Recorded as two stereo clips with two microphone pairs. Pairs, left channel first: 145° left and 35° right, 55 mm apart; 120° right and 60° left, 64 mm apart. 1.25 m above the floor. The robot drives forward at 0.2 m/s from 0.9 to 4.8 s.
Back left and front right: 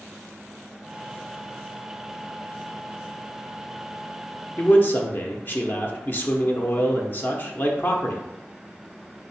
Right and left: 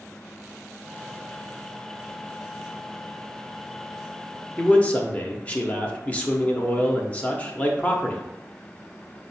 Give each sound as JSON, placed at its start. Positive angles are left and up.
{"t": 4.6, "sound": "a man speaking", "azimuth_deg": 175, "distance_m": 0.6}